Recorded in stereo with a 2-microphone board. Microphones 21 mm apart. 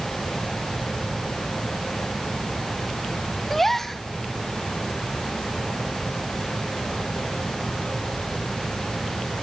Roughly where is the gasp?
Centre.